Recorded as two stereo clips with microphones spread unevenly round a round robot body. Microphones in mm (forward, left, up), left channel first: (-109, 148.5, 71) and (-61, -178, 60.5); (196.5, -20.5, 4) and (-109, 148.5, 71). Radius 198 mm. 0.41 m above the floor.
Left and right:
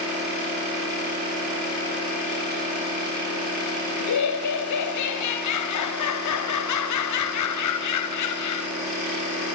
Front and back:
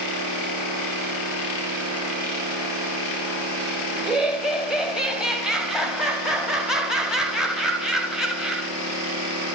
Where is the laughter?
60° left, 2.5 m.